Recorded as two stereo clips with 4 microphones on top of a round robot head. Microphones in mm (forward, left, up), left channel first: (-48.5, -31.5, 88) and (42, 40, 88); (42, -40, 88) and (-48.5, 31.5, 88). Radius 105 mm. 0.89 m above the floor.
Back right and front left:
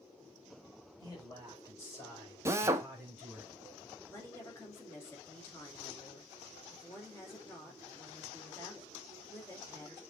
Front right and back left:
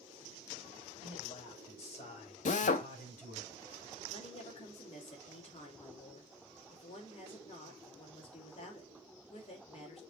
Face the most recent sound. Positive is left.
turn(degrees=-75)